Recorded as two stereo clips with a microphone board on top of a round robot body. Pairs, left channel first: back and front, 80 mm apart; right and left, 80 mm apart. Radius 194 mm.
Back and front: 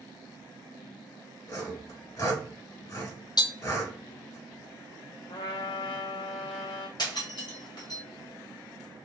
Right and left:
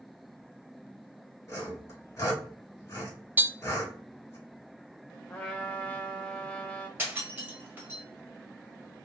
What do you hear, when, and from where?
1.5 s sawing: 145° right, 2.5 m
3.4 s tapping: 155° left, 0.5 m
5.3 s a trumpet: 165° right, 0.6 m
7.0 s breaking glass: 155° left, 1.7 m